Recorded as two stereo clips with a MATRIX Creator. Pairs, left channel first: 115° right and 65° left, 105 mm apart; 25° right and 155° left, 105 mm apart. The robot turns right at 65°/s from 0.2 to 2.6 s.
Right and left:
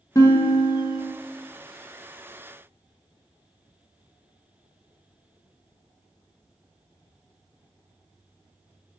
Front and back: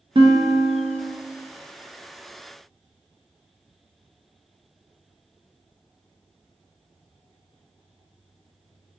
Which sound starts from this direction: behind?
A guitar, at 0.1 s.